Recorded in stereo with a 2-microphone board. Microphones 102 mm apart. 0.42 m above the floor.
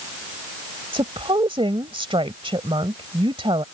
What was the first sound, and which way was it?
A woman speaking, 60° right (ahead or behind).